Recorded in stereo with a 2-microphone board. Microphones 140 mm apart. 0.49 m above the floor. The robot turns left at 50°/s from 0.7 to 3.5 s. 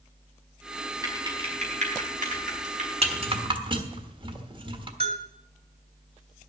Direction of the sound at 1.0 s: 25° right (ahead or behind).